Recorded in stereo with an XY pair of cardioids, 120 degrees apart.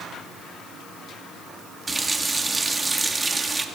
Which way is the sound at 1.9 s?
15° right.